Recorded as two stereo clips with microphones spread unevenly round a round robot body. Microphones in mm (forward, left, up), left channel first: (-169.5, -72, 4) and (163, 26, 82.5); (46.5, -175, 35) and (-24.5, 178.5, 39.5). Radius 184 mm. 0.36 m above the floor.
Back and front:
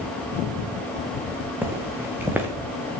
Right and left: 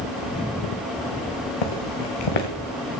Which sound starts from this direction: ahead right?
Footsteps, at 1.6 s.